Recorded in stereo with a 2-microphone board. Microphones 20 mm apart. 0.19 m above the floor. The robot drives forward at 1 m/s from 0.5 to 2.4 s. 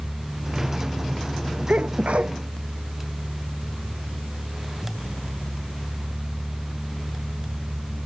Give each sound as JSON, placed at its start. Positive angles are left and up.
{"t": 1.7, "sound": "a sneeze", "side_deg": -75}